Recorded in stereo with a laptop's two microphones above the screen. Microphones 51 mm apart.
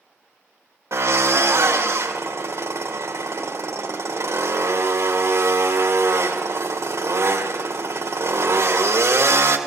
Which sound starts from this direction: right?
A drill, at 0.9 s.